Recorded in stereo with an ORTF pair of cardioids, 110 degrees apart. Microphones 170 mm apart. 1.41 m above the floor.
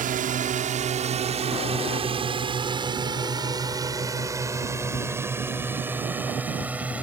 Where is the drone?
55° right; by 7.0 s 10° right.